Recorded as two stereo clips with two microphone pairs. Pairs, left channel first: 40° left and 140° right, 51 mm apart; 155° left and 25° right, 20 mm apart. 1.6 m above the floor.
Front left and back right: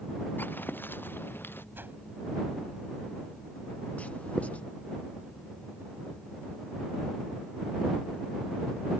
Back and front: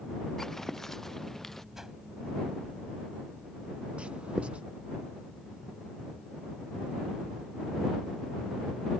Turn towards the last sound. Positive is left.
turn(degrees=-25)